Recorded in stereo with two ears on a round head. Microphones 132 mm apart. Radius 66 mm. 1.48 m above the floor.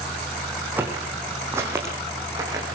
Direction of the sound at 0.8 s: 15° right (ahead or behind).